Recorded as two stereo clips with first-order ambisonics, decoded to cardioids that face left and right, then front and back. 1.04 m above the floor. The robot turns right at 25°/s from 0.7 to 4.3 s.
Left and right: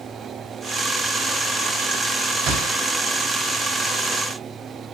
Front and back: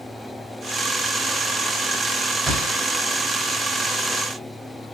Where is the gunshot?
95° right, 5.5 m; by 2.8 s 85° right, 5.5 m.